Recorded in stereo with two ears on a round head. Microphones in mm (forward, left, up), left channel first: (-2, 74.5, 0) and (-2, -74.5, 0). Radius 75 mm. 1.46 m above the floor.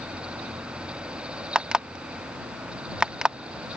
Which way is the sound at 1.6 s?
5° right (ahead or behind).